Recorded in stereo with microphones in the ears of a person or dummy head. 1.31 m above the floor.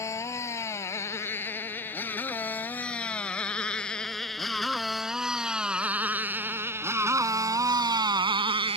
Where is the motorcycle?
20° left (ahead or behind); by 8.8 s 30° right (ahead or behind).